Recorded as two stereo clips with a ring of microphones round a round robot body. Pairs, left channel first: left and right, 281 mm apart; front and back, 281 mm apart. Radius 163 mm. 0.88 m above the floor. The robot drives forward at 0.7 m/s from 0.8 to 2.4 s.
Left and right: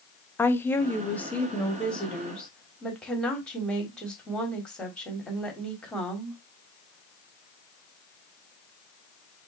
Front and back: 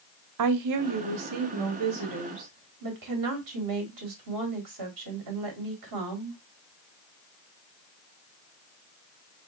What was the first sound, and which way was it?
A woman speaking, 175° left.